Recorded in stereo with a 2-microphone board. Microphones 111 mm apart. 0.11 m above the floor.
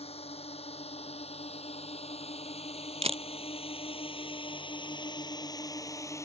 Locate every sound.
0.0 s a drone: 65° left (ahead or behind); by 6.3 s 25° left (ahead or behind)
3.0 s a camera shutter: 65° right (ahead or behind)